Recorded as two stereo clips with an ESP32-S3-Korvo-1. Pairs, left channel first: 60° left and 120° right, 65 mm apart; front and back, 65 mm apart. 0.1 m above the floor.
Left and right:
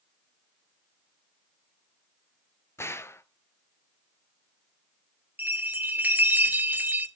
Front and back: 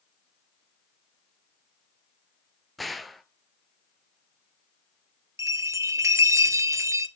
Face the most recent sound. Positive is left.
turn(degrees=-175)